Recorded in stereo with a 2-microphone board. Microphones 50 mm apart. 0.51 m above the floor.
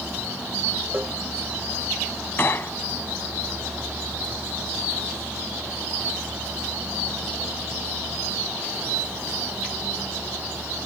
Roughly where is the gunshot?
Left.